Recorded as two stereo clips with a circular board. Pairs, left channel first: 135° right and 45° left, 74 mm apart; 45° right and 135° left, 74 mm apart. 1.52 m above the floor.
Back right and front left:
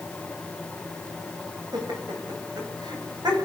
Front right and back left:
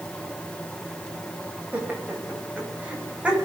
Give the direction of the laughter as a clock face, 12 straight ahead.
10 o'clock.